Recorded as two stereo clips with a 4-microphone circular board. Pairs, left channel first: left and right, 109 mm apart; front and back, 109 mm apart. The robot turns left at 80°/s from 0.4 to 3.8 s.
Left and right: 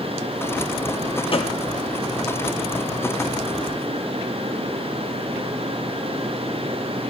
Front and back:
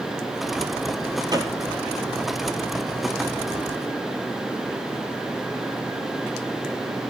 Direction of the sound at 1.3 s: 130° left.